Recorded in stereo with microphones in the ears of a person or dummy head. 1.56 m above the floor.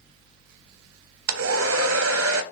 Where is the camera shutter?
I don't hear a camera shutter.